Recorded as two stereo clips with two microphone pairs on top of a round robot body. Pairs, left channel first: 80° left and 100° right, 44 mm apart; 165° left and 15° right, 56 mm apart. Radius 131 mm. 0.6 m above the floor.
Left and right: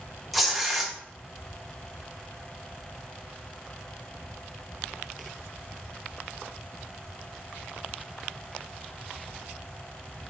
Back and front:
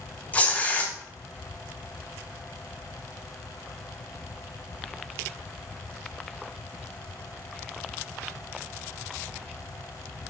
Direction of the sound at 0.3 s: 160° left.